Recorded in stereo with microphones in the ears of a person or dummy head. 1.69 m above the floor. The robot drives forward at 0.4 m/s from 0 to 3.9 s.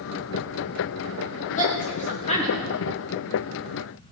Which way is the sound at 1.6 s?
30° left (ahead or behind).